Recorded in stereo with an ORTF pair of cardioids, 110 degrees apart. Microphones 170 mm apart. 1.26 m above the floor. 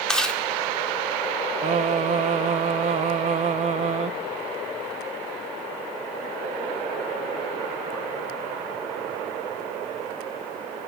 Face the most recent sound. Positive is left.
turn(degrees=-40)